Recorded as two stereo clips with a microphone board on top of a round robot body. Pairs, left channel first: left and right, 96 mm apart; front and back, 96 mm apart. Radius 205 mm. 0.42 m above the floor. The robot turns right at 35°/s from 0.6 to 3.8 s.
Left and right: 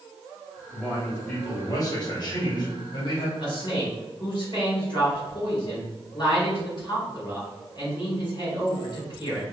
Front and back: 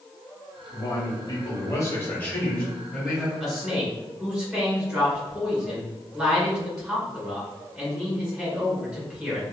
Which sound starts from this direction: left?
A man speaking, at 3.4 s.